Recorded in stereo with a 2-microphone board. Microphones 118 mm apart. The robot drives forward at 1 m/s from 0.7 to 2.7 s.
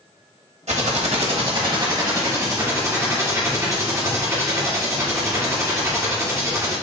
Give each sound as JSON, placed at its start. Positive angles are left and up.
{"t": 0.7, "sound": "typing on a keyboard", "side_deg": -80, "distance_m": 1.0}